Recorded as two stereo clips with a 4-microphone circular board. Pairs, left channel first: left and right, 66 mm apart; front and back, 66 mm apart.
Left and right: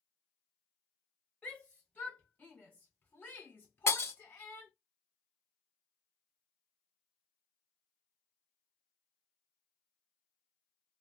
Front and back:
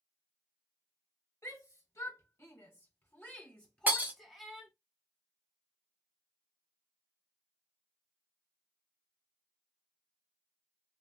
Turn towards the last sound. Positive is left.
turn(degrees=125)